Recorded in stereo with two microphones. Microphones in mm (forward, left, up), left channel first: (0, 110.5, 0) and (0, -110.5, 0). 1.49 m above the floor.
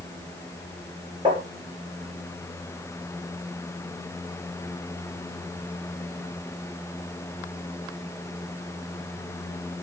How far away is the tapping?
About 8.5 m.